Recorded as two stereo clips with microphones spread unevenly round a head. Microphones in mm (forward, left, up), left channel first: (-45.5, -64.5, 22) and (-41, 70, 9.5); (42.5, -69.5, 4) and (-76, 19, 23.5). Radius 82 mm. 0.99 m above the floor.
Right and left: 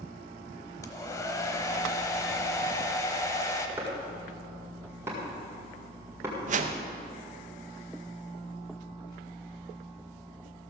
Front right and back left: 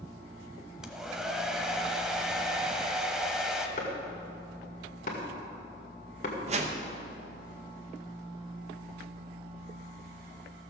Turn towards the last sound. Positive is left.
turn(degrees=95)